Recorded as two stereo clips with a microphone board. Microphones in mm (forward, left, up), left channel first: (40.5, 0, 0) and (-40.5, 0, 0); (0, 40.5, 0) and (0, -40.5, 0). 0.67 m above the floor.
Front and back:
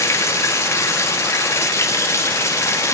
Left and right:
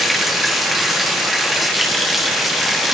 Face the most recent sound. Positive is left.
turn(degrees=0)